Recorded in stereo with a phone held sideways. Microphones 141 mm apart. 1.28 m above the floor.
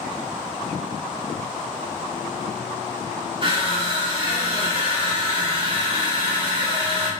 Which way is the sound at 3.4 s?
40° right (ahead or behind).